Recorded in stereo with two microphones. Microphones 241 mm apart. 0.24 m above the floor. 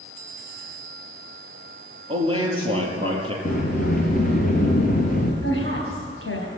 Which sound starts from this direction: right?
A man speaking, at 2.1 s.